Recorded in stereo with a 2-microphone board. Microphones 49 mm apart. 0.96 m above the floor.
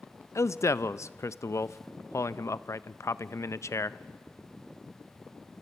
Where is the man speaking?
65° left (ahead or behind), 0.5 m.